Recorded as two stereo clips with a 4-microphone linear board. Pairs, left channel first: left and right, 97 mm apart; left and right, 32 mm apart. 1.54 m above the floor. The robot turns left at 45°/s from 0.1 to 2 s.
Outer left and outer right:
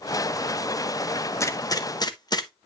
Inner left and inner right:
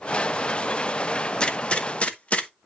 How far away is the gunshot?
About 0.8 m.